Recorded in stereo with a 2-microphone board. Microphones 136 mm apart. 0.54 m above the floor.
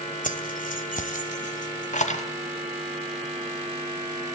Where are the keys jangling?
75° left (ahead or behind), 1.7 m; by 2.2 s 60° left (ahead or behind), 2.5 m.